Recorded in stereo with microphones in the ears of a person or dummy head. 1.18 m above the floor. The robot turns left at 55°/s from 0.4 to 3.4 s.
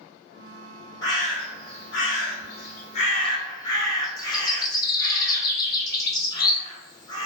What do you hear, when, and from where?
1.0 s a bird: 155° left, 0.9 m; by 7.3 s 25° left, 0.9 m